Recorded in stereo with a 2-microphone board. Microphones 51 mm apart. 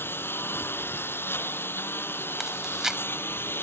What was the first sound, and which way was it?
A lawn mower, 50° left (ahead or behind).